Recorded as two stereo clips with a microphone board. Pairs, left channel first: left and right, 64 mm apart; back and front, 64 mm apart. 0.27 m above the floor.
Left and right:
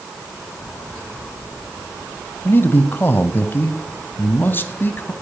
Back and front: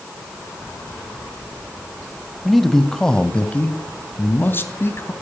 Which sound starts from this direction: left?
A man speaking, at 2.5 s.